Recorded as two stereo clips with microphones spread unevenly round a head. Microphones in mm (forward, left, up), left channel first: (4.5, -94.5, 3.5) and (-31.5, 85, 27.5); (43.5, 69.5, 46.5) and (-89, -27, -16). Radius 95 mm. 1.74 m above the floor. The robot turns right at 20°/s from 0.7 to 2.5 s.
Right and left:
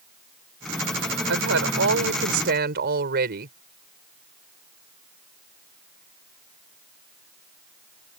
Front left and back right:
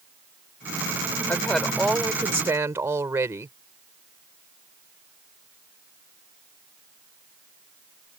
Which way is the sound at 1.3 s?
115° left.